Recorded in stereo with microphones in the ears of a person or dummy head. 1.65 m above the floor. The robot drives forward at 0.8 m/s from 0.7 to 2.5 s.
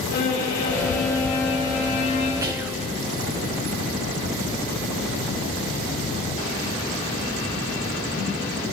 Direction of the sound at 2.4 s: 20° right (ahead or behind).